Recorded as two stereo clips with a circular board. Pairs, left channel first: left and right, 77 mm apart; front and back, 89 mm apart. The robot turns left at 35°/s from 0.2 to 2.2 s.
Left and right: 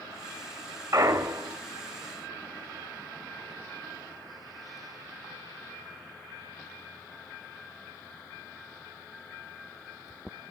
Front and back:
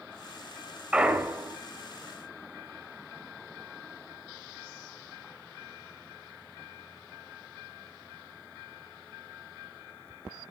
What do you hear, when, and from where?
0.9 s a clunk: 105° right, 0.5 m; by 1.6 s 130° right, 0.5 m